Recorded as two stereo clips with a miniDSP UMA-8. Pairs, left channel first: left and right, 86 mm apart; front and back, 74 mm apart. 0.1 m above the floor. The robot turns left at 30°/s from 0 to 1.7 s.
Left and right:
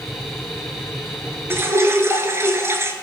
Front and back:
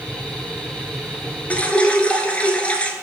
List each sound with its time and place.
1.5 s dripping: 55° right, 0.8 m; by 2.9 s 60° right, 0.8 m